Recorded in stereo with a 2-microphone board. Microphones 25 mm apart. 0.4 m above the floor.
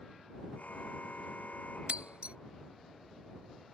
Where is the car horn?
85° left.